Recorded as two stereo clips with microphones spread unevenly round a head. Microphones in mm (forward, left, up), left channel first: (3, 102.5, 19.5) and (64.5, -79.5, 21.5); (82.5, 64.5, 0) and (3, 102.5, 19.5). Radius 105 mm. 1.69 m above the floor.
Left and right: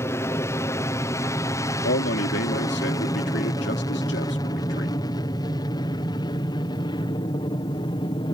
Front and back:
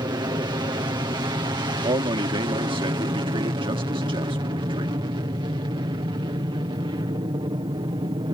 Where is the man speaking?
150° left.